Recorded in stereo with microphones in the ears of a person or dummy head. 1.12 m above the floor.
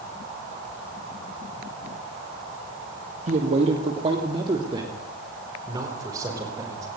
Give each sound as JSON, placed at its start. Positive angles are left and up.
{"t": 3.3, "sound": "a man speaking", "side_deg": -45, "distance_m": 1.8}